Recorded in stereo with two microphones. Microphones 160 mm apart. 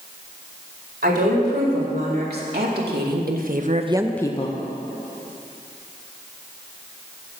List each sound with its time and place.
1.0 s a woman speaking: 85° right, 5 m; by 4.6 s 50° left (ahead or behind), 1.0 m